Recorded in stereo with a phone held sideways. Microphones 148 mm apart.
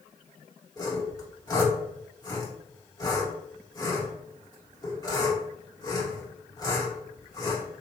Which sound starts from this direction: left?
Sawing, at 0.8 s.